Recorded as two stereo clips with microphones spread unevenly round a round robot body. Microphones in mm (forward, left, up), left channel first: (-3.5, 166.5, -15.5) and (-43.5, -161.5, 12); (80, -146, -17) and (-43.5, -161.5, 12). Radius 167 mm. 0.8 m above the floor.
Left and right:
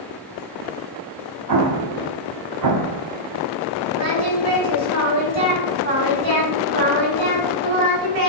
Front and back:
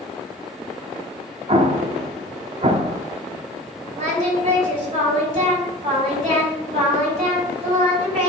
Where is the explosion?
130° right, 0.9 m.